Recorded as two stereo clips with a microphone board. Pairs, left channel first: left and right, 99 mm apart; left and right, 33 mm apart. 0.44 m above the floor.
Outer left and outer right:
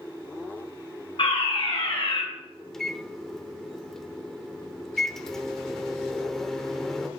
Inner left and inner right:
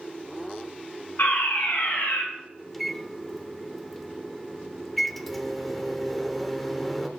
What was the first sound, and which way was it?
A fire alarm, 55° left (ahead or behind).